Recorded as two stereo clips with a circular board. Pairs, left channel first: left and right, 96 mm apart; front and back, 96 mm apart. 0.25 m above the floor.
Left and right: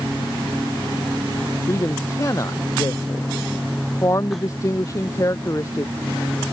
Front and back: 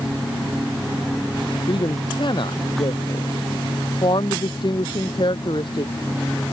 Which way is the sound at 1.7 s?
35° left.